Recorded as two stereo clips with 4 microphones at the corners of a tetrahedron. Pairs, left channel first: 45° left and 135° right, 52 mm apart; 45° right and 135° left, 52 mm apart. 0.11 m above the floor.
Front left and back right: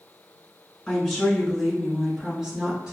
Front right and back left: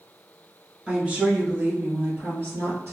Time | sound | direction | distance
0.9 | a woman speaking | 100° left | 1.1 m